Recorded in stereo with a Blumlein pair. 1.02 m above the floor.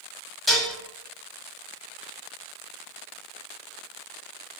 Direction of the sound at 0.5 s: 5° left.